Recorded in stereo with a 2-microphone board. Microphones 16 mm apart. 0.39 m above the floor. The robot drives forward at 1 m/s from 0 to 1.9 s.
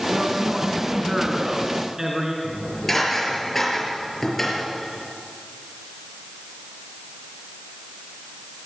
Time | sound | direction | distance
0.1 | a man speaking | 55° right (ahead or behind) | 3 m
2.4 | dishes clattering | 20° left (ahead or behind) | 6 m